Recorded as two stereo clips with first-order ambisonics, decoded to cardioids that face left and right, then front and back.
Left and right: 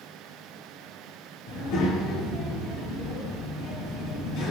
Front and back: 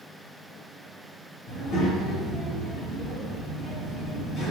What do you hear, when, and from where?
1.5 s a child speaking: 60° left, 1.9 m